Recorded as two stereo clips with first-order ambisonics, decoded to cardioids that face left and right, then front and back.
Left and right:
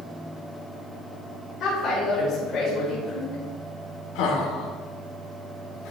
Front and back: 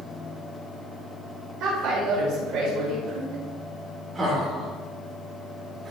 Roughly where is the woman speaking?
Behind left.